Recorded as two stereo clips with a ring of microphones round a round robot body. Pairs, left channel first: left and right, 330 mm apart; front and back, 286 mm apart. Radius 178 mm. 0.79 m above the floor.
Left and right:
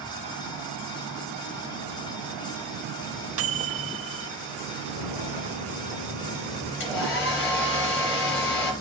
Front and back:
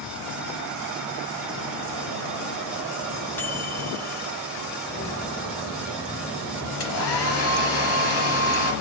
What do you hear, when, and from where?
3.4 s a microwave: 80° right, 0.6 m
4.8 s footsteps: 55° left, 3 m; by 6.7 s 75° left, 3 m
6.8 s a hair dryer: 35° left, 4 m